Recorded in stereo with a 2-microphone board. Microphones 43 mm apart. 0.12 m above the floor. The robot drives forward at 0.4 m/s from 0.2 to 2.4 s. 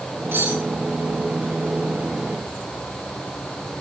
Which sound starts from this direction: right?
Cutlery clinking, at 0.3 s.